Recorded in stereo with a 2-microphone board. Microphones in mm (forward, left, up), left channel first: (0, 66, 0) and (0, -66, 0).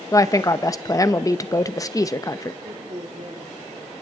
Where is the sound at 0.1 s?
25° left (ahead or behind), 0.7 m.